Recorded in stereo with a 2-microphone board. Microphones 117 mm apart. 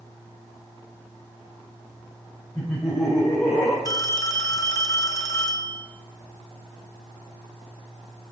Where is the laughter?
25° left (ahead or behind), 3.5 m; by 3.8 s 35° left (ahead or behind), 2.5 m.